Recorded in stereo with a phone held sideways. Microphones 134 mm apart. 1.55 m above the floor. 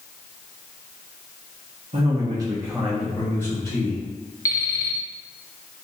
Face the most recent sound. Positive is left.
turn(degrees=25)  # may be behind; listen again after turning